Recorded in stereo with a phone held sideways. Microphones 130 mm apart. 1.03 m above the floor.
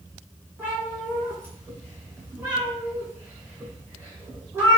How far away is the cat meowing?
About 1.4 m.